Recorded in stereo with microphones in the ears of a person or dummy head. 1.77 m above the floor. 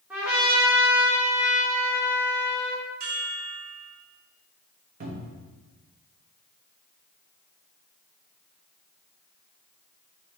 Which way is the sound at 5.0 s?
45° right (ahead or behind).